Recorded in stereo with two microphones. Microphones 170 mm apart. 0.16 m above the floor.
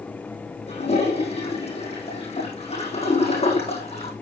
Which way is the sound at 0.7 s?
40° left (ahead or behind).